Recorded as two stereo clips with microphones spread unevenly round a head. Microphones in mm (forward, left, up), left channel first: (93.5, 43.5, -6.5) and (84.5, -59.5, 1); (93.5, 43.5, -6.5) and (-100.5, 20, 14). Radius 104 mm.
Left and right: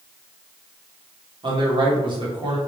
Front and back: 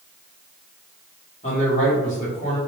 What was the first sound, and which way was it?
A man speaking, 55° right.